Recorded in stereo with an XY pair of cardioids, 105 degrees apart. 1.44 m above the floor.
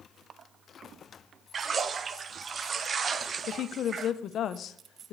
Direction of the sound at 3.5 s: 60° left.